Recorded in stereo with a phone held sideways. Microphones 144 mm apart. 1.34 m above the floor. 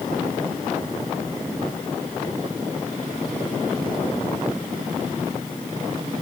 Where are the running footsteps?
No running footsteps in this recording.